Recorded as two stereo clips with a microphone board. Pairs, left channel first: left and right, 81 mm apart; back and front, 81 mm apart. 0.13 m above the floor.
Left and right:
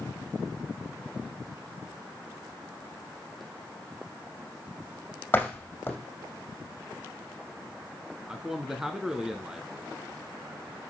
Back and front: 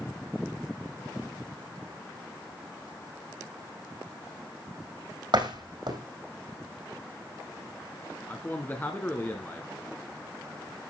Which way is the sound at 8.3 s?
170° right.